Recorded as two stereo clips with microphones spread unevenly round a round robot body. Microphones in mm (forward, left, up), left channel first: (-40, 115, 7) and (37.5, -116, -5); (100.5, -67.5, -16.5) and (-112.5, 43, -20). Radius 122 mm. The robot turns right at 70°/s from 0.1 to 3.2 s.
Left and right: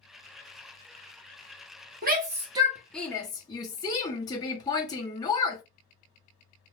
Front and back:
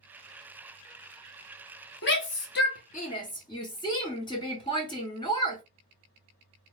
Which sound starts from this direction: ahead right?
A shout, at 2.0 s.